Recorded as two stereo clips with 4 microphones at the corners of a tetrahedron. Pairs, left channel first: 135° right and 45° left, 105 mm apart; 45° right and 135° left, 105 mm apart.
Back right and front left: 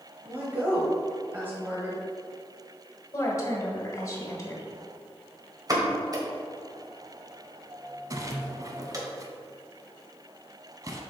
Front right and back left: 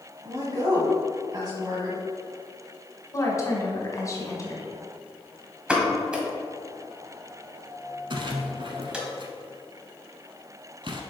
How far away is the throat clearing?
No throat clearing in this recording.